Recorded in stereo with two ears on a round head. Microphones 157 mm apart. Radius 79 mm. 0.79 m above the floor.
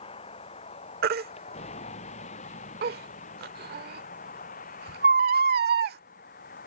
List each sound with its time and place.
0.0 s a vehicle: 35° left (ahead or behind); by 6.7 s 50° left (ahead or behind)
1.0 s a baby crying: 60° right (ahead or behind)